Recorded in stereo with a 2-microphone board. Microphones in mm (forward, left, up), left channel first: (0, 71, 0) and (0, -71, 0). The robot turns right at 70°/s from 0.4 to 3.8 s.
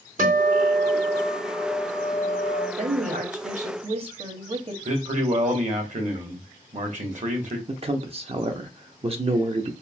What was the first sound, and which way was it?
A guitar, 105° right.